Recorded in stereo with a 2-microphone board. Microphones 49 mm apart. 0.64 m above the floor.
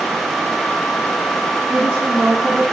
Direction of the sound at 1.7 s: 45° right (ahead or behind).